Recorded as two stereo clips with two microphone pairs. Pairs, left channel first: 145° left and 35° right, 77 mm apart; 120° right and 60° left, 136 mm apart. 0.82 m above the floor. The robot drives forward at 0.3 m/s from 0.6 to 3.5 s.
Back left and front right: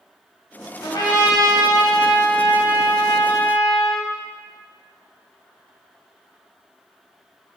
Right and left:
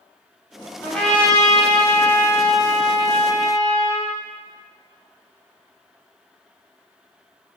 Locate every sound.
0.8 s a trumpet: 155° left, 1.6 m; by 4.1 s 165° left, 2.5 m